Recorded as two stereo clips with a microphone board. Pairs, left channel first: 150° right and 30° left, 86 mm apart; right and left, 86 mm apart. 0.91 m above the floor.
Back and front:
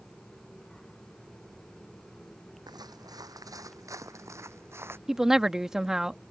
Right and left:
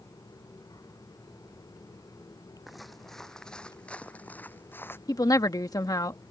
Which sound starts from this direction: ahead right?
A woman speaking, at 5.1 s.